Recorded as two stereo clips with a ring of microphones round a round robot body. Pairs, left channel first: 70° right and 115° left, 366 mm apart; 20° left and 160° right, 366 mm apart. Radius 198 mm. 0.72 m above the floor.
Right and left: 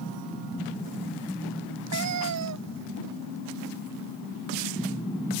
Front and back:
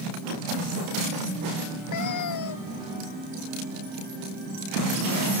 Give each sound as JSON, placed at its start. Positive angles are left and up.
{"t": 1.9, "sound": "a cat meowing", "azimuth_deg": 65}